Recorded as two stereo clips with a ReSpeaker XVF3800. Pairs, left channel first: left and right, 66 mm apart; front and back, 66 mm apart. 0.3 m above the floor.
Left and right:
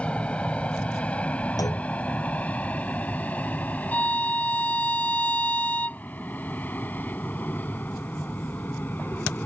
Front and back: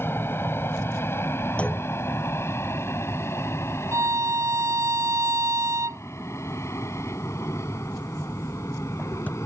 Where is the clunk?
70° left.